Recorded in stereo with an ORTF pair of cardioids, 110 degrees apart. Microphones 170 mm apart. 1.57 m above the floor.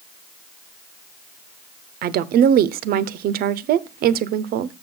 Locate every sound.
2.0 s a woman speaking: 65° right, 0.7 m